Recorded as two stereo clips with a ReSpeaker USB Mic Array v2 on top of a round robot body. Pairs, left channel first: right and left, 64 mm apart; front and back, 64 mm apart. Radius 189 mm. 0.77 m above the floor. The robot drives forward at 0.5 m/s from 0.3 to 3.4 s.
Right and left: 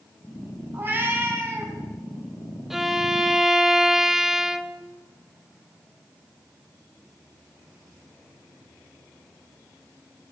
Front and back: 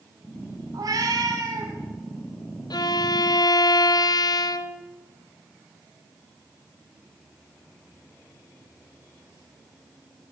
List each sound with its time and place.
0.7 s a cat meowing: 150° left, 3 m; by 1.7 s 155° left, 3 m
2.7 s a violin: 5° left, 1.1 m